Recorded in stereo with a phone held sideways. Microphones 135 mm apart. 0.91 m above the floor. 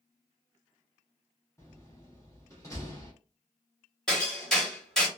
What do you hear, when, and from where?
1.6 s a door slam: 20° left (ahead or behind), 1.1 m
4.1 s hammering: 5° left (ahead or behind), 1.5 m